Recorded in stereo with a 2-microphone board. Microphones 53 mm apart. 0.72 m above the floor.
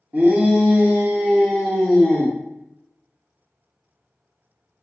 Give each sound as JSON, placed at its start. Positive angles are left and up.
{"t": 0.1, "sound": "a shout", "side_deg": -35, "distance_m": 0.8}